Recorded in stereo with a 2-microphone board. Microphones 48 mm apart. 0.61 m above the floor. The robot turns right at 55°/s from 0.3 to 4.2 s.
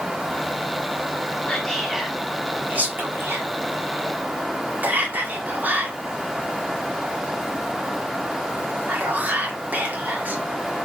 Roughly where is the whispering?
Centre.